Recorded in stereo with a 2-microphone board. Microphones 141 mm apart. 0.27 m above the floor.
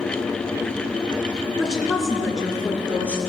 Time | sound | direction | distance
1.6 | a woman speaking | 5° left (ahead or behind) | 3 m